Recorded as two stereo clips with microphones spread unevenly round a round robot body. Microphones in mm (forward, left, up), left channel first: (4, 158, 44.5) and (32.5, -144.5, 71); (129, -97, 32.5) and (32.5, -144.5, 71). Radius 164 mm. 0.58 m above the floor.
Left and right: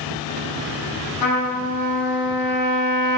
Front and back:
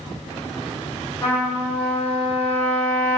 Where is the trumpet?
90° left, 0.9 m.